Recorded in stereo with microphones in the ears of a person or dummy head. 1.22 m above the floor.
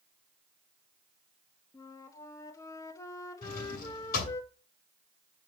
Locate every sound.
1.7 s a flute: 25° left (ahead or behind), 1.2 m
3.4 s a drawer: 60° left (ahead or behind), 6.5 m